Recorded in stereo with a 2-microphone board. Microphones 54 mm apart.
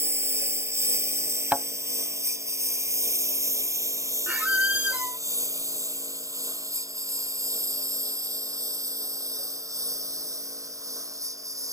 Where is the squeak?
25° right (ahead or behind).